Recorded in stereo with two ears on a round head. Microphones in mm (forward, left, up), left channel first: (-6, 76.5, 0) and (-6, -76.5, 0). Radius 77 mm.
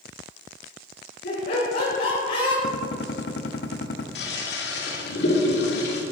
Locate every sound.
1.2 s laughter: 65° left (ahead or behind), 4.5 m; by 2.5 s 50° left (ahead or behind), 4 m
2.6 s a gunshot: 65° left (ahead or behind), 1.0 m
4.2 s a toilet flushing: 65° left (ahead or behind), 2.5 m